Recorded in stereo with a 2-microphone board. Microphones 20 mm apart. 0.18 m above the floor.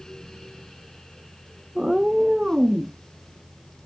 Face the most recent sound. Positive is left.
turn(degrees=-45)  # may be behind; listen again after turning